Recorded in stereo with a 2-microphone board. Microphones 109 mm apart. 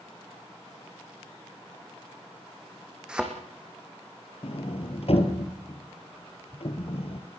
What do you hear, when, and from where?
3.1 s a thud: 10° right (ahead or behind), 4 m
4.4 s a sliding door: 60° left (ahead or behind), 3 m